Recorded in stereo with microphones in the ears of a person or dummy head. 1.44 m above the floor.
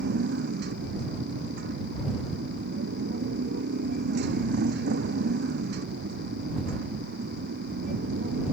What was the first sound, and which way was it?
A motorcycle, 55° right (ahead or behind).